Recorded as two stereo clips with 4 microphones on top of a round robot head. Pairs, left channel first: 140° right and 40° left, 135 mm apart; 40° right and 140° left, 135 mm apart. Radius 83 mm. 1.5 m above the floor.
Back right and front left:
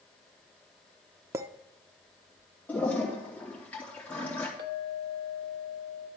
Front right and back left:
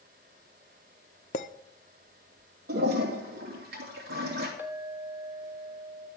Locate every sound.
1.3 s a clink: 20° right, 0.6 m
2.7 s a toilet flushing: 145° left, 3 m
4.6 s a clink: 60° left, 1.4 m